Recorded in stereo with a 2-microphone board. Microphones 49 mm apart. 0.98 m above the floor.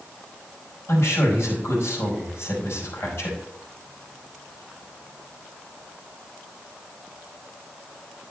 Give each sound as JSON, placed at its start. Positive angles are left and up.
{"t": 0.9, "sound": "a man speaking", "side_deg": 65, "distance_m": 5.0}